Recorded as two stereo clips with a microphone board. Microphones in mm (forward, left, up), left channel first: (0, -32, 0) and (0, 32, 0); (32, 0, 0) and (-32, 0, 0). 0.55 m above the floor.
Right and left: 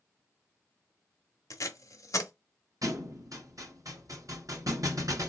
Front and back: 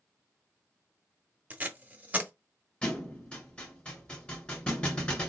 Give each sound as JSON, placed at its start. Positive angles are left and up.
{"t": 1.5, "sound": "tape being pulled", "azimuth_deg": -120, "distance_m": 0.9}
{"t": 2.8, "sound": "a thud", "azimuth_deg": 70, "distance_m": 1.9}